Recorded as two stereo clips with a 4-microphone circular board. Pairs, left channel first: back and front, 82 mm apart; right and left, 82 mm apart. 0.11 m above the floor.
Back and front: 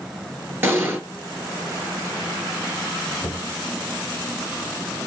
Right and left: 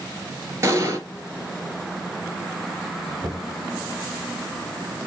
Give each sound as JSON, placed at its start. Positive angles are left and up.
{"t": 0.6, "sound": "an explosion", "azimuth_deg": 50, "distance_m": 1.3}
{"t": 3.2, "sound": "knocking", "azimuth_deg": 135, "distance_m": 1.6}